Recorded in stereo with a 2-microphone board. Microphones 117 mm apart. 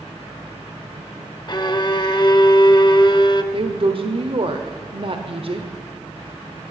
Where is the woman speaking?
50° right (ahead or behind), 1.3 m.